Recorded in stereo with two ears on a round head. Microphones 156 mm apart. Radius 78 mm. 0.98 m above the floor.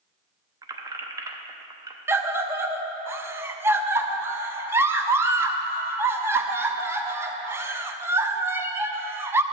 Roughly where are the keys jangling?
Right.